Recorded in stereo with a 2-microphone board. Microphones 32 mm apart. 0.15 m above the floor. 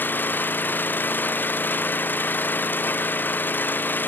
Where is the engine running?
80° left.